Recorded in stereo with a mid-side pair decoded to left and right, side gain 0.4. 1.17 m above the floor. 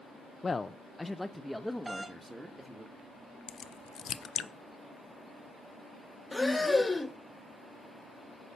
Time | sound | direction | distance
0.4 | a man speaking | 35° left | 0.5 m
1.9 | a doorbell | 25° right | 1.2 m
3.5 | a crack | 65° left | 0.6 m
6.3 | breathing | 20° left | 0.8 m